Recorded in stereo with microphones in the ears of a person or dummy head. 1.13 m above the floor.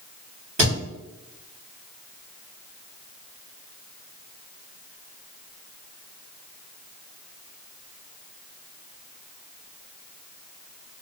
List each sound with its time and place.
0.6 s a thud: 40° right (ahead or behind), 1.5 m